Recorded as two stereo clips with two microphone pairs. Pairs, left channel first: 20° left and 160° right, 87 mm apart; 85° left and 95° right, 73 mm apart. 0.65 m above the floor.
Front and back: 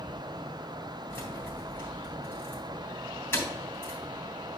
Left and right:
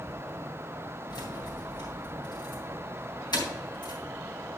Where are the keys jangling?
85° left, 3.5 m.